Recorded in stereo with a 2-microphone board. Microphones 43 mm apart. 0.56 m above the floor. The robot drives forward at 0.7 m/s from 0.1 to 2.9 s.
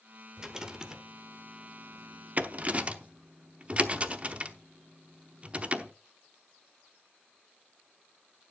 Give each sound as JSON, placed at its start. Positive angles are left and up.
{"t": 0.4, "sound": "a rattle", "side_deg": -15, "distance_m": 1.4}